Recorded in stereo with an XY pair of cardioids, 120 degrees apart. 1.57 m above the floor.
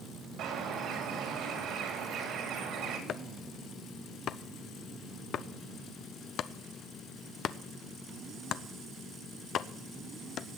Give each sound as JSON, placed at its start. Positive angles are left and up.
{"t": 0.4, "sound": "a bird", "azimuth_deg": -70, "distance_m": 3.5}
{"t": 3.1, "sound": "chopping", "azimuth_deg": 55, "distance_m": 0.7}